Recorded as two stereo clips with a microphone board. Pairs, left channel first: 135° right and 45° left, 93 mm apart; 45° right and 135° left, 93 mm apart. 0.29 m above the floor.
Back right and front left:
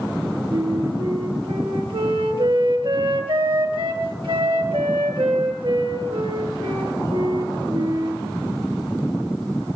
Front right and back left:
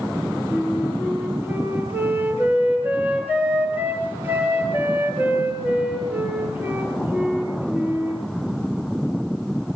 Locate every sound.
0.5 s a flute: 65° left, 5 m